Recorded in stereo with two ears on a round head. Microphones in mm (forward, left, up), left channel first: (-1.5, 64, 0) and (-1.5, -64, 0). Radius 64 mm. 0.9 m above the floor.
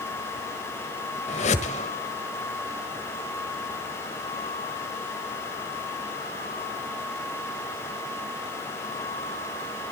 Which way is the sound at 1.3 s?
50° left (ahead or behind).